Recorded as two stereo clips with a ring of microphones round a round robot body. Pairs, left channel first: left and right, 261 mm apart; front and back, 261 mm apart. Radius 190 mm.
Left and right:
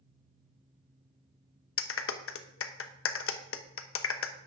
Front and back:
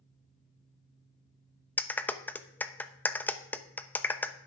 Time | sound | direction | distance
1.8 | a clap | 80° left | 1.0 m